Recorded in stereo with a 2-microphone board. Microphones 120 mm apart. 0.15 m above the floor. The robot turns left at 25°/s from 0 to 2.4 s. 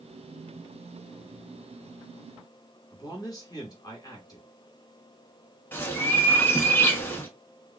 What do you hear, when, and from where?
2.9 s a man speaking: 30° left (ahead or behind), 1.3 m
5.7 s a bird: 15° left (ahead or behind), 0.8 m